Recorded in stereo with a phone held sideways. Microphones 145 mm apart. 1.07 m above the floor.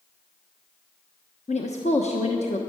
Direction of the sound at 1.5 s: 55° left (ahead or behind).